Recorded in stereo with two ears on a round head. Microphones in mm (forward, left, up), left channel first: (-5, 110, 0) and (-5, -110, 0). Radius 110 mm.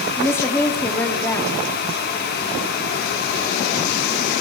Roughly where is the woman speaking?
Centre.